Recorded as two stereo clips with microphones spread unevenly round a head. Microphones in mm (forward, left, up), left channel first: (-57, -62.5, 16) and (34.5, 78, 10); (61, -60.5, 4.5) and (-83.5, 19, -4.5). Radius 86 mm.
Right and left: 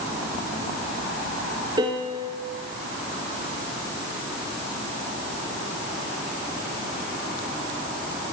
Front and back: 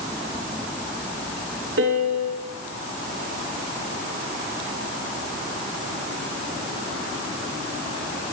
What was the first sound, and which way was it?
A piano, 125° left.